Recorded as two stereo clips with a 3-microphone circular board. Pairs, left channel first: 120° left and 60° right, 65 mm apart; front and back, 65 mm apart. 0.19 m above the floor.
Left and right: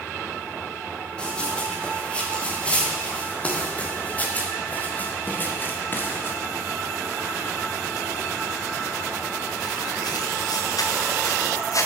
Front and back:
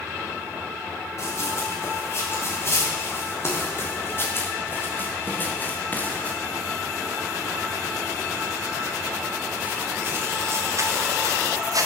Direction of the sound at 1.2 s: 45° left.